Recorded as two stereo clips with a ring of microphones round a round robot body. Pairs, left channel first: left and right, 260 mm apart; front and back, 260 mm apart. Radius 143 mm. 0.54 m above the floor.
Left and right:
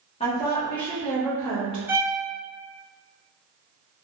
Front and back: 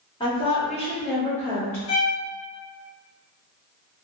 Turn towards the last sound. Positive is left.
turn(degrees=-10)